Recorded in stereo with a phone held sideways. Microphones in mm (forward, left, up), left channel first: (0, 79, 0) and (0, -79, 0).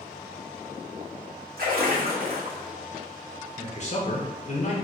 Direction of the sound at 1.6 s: 70° right (ahead or behind).